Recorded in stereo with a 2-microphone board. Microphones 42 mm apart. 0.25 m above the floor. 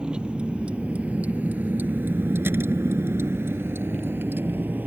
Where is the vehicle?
20° right (ahead or behind); by 4.9 s 50° right (ahead or behind).